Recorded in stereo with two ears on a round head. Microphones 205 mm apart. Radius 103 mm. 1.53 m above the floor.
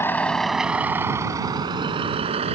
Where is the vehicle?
10° left (ahead or behind); by 2.5 s 30° right (ahead or behind).